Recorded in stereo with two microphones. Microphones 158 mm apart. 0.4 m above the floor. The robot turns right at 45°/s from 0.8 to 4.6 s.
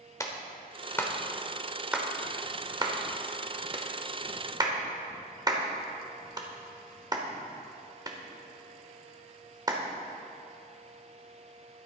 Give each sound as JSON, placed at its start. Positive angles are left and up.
{"t": 0.2, "sound": "a clap", "side_deg": 20, "distance_m": 1.2}